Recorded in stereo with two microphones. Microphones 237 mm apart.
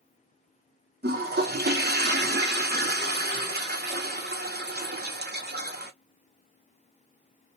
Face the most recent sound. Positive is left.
turn(degrees=-45)  # may be behind; listen again after turning